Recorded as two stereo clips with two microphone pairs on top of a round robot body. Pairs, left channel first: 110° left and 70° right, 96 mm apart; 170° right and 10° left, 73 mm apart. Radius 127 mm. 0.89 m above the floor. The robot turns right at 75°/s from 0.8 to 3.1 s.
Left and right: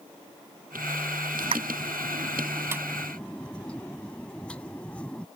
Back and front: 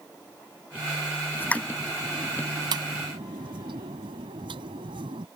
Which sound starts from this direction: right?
A pop, at 1.4 s.